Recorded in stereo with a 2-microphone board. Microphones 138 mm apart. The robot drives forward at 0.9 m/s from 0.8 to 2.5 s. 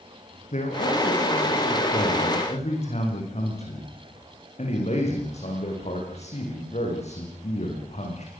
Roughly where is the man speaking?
Left.